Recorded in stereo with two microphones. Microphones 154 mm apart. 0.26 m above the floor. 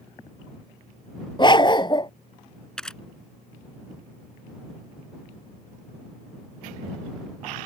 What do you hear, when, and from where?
1.4 s a dog barking: 30° left (ahead or behind)
2.8 s a camera shutter: 5° left (ahead or behind)